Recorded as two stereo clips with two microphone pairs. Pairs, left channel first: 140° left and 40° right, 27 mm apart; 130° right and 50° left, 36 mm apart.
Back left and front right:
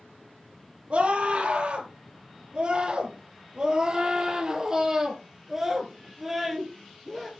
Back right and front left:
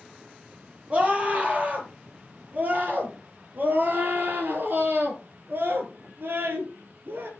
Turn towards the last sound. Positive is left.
turn(degrees=50)